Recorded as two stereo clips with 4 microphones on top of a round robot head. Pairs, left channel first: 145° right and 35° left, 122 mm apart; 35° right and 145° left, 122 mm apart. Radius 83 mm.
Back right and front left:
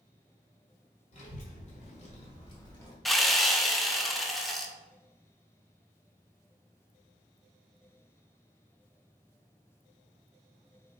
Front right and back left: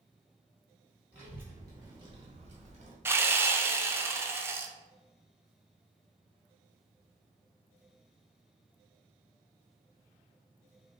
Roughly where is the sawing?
Behind left.